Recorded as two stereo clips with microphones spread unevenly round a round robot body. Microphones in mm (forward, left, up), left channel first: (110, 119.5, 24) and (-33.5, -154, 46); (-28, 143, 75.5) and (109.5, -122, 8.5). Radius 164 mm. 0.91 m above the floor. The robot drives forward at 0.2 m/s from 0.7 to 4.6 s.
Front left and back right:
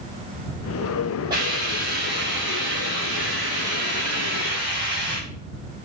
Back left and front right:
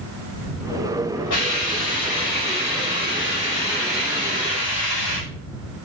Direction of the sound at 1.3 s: 165° left.